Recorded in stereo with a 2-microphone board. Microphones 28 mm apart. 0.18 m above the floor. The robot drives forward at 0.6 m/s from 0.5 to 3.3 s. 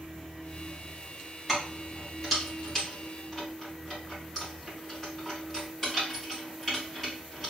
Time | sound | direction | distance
1.5 | keys jangling | 5° left (ahead or behind) | 1.8 m